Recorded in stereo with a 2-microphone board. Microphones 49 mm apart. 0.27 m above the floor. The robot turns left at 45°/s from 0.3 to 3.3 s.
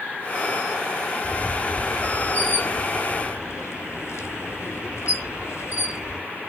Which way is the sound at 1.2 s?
10° left (ahead or behind).